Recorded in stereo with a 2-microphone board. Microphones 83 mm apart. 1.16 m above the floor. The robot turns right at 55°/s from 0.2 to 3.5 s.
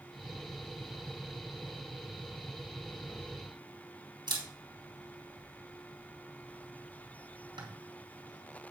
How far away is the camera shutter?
About 3 m.